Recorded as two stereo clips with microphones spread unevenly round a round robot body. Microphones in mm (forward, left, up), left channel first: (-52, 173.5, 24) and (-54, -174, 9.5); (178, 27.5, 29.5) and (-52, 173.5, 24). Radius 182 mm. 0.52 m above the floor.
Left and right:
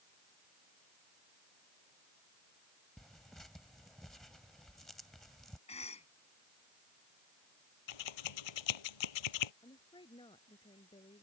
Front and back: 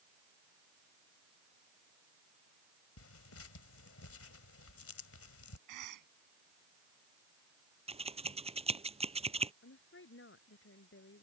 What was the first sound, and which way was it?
Tearing paper, straight ahead.